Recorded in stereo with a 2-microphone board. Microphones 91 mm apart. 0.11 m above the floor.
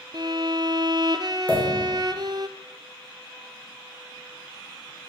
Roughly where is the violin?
Right.